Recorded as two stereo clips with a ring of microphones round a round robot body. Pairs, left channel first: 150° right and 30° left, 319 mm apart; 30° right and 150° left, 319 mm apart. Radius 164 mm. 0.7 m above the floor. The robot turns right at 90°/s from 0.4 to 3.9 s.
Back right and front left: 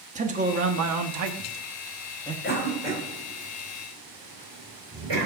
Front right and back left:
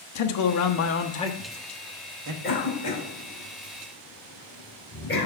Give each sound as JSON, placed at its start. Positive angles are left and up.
{"t": 0.1, "sound": "a man speaking", "azimuth_deg": -35, "distance_m": 1.2}
{"t": 2.4, "sound": "a cough", "azimuth_deg": -90, "distance_m": 4.0}